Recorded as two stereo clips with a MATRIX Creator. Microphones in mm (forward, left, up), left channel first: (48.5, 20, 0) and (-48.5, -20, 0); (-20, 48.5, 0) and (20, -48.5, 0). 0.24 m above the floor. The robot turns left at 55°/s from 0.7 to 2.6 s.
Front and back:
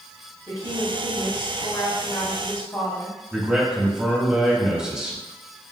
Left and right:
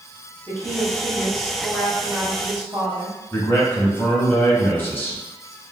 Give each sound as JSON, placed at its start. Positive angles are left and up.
{"t": 0.5, "sound": "a woman speaking", "azimuth_deg": 70, "distance_m": 1.3}
{"t": 3.3, "sound": "a man speaking", "azimuth_deg": 135, "distance_m": 1.0}